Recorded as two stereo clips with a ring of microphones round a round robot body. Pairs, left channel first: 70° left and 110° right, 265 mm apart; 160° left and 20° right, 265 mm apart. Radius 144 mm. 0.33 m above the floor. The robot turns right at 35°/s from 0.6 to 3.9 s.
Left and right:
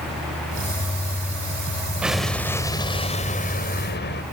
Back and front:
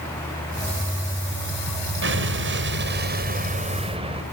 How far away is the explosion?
About 2.0 m.